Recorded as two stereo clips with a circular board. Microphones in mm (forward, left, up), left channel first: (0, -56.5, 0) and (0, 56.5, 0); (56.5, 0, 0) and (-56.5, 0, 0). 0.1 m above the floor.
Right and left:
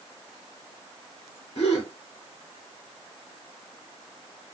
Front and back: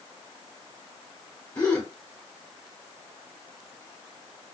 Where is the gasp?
70° right, 3 m.